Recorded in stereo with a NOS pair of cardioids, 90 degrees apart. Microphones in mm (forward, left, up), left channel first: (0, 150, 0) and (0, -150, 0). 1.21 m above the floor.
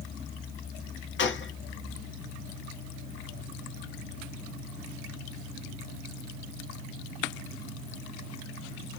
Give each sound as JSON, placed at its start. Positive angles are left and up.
{"t": 1.2, "sound": "a gunshot", "azimuth_deg": 40, "distance_m": 0.8}